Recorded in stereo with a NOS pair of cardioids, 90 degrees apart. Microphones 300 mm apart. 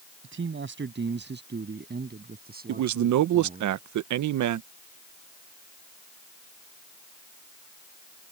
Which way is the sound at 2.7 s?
65° right.